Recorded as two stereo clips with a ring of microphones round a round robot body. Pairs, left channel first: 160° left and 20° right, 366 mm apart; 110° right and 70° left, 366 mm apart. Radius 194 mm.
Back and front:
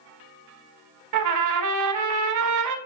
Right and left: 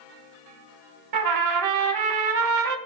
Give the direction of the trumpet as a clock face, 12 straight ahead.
11 o'clock.